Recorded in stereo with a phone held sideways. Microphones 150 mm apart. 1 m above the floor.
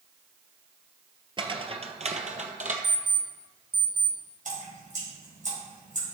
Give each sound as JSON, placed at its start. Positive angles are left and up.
{"t": 1.4, "sound": "footsteps", "side_deg": -35, "distance_m": 1.1}
{"t": 2.8, "sound": "an alarm clock", "side_deg": -15, "distance_m": 2.0}
{"t": 4.5, "sound": "dripping", "side_deg": -60, "distance_m": 4.5}